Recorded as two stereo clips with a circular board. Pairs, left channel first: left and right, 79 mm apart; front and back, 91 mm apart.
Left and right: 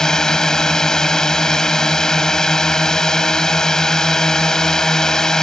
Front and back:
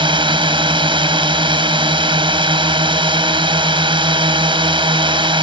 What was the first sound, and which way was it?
A drone, 170° left.